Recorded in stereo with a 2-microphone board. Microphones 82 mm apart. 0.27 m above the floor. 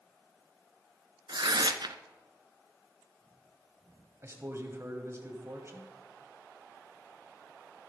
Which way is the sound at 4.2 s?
35° right (ahead or behind).